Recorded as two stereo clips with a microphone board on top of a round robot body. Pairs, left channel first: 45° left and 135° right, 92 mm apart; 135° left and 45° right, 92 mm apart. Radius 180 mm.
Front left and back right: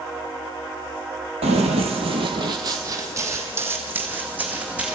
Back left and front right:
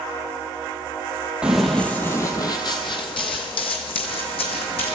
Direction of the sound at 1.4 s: 125° right.